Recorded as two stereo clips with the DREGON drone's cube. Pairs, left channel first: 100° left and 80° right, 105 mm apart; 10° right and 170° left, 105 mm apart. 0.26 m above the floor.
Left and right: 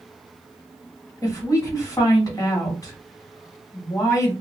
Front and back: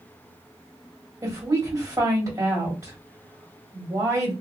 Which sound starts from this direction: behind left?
A woman speaking, at 1.2 s.